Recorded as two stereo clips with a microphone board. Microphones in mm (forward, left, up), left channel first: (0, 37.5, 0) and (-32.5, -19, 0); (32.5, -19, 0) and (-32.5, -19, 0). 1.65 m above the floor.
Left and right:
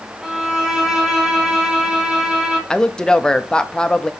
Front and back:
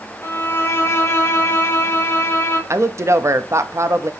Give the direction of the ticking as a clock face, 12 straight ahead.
No ticking in this recording.